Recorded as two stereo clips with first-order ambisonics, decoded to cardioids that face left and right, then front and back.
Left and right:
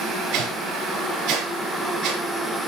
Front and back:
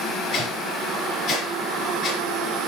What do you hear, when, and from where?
0.3 s a whoosh: 55° right, 5.5 m